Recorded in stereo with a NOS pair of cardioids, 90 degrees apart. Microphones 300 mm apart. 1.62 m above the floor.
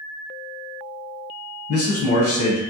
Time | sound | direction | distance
1.7 | a man speaking | 50° left | 1.1 m